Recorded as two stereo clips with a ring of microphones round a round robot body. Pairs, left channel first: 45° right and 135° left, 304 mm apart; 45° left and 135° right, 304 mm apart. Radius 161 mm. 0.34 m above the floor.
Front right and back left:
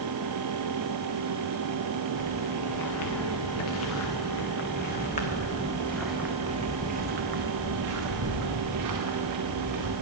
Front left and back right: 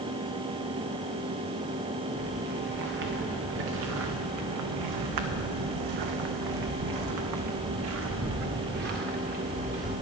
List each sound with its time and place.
2.2 s footsteps: 75° right, 2.5 m; by 9.9 s 160° left, 2 m